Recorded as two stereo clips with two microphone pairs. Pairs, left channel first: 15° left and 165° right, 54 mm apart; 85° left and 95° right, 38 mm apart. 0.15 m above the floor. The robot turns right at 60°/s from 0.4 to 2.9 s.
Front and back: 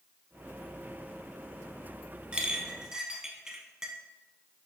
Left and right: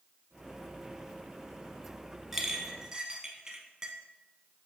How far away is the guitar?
No guitar in this recording.